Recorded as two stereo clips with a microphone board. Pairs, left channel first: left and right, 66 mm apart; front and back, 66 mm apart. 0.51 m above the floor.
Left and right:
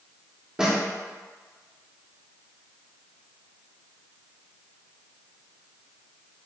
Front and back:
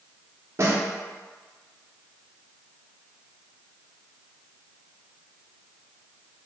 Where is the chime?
No chime in this recording.